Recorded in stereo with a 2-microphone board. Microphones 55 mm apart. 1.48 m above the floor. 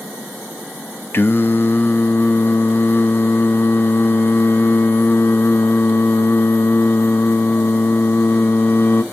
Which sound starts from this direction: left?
Singing, at 1.1 s.